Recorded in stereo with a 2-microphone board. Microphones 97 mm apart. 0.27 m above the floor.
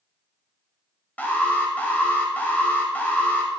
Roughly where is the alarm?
Centre.